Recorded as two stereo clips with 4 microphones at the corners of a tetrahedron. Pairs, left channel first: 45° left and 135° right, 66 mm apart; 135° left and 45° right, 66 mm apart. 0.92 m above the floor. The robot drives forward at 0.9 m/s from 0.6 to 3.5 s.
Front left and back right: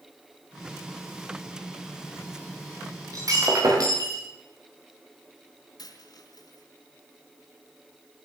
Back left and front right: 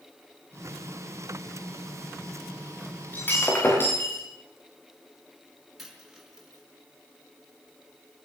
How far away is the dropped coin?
About 4.5 m.